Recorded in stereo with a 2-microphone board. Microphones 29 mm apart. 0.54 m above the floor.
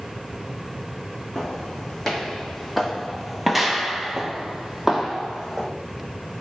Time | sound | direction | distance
1.4 | footsteps | 10° left (ahead or behind) | 1.4 m